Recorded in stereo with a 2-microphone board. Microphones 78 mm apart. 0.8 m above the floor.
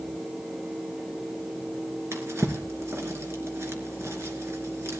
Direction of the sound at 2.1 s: 35° right (ahead or behind).